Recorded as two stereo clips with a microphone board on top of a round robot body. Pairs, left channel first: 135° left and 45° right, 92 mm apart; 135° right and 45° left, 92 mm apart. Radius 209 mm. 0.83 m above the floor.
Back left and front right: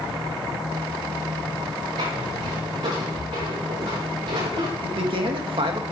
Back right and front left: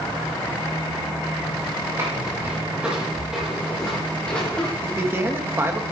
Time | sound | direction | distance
2.0 | footsteps | 15° right | 5 m
4.8 | a man speaking | 20° right | 1.9 m